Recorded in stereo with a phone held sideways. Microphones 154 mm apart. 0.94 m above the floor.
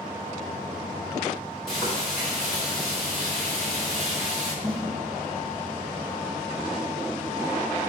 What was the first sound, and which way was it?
Frying, 5° left (ahead or behind).